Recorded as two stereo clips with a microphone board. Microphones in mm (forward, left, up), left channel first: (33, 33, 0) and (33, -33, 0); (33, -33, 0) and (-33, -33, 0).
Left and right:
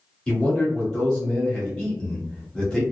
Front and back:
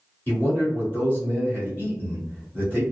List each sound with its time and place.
0.3 s a man speaking: 20° left, 1.5 m